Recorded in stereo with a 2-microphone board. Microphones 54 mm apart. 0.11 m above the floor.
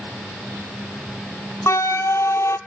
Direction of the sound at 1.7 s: 65° left (ahead or behind).